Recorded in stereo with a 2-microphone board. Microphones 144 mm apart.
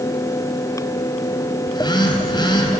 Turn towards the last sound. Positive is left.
turn(degrees=30)  # may be behind; listen again after turning